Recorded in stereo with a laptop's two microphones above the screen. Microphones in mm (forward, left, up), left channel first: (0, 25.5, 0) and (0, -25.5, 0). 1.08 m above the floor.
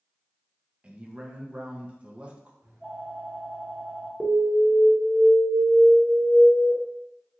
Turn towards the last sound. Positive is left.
turn(degrees=-20)  # may be behind; listen again after turning